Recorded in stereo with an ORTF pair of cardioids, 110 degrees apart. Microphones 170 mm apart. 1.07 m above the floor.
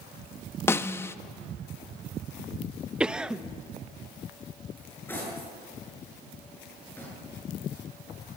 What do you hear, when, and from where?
0.7 s a snare drum: 15° left, 0.8 m
3.0 s a cough: 5° right, 0.8 m
4.8 s cutlery clinking: 10° left, 9 m